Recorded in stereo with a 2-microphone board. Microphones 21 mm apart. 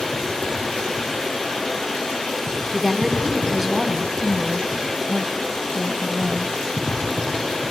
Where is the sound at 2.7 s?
20° right (ahead or behind), 1.7 m.